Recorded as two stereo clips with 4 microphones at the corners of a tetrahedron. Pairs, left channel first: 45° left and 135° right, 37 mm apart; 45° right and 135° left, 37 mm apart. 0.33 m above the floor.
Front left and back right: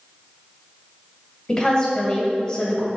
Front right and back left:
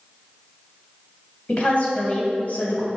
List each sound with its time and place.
1.5 s a woman speaking: 15° right, 2 m